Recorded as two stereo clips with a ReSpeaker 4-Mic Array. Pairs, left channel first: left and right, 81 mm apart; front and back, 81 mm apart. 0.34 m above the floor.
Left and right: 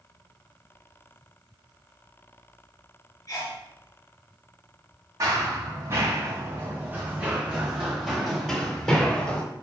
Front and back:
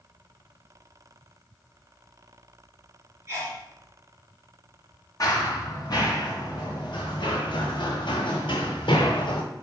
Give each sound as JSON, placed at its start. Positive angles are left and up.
{"t": 3.3, "sound": "a sneeze", "azimuth_deg": 130, "distance_m": 2.5}
{"t": 5.2, "sound": "running footsteps", "azimuth_deg": -40, "distance_m": 3.0}